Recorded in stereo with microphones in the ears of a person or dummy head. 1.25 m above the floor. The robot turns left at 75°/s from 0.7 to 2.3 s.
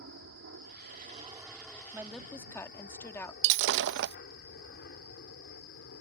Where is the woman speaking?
15° right (ahead or behind); by 3.3 s 10° left (ahead or behind).